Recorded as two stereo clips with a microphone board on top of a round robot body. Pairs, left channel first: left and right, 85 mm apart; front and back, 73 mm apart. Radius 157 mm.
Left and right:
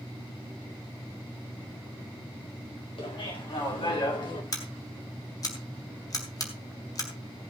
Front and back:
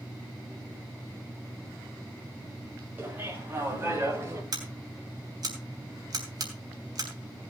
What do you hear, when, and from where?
3.0 s laughter: 115° left, 6.5 m; by 4.4 s 125° left, 5.5 m
4.5 s scissors: 140° left, 3 m